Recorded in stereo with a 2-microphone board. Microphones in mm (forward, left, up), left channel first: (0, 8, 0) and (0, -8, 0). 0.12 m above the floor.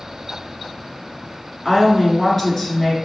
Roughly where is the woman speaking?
Centre.